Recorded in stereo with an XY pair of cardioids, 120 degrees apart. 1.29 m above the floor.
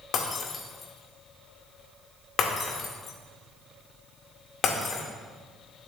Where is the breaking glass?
55° left, 1.9 m.